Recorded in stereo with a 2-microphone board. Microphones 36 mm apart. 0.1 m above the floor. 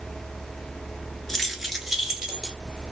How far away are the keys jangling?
About 0.9 m.